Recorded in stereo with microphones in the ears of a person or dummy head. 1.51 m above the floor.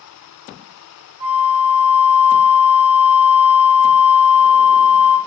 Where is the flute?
20° right (ahead or behind), 0.8 m.